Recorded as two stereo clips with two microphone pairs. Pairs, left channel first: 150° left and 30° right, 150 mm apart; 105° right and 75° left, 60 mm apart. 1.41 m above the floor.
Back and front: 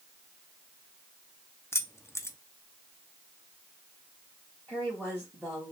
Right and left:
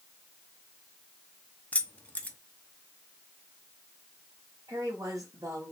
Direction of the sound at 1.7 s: 155° right.